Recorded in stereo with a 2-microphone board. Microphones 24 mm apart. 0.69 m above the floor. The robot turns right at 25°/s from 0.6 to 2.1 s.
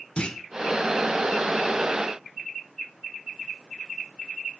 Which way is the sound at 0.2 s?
50° left (ahead or behind).